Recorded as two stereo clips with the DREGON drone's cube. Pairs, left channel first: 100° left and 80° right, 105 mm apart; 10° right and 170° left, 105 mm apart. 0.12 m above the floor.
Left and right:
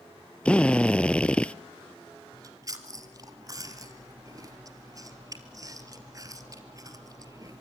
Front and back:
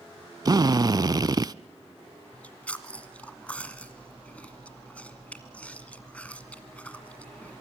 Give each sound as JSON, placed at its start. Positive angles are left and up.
{"t": 0.5, "sound": "a drill", "azimuth_deg": 170, "distance_m": 0.5}
{"t": 2.3, "sound": "chewing", "azimuth_deg": -80, "distance_m": 1.7}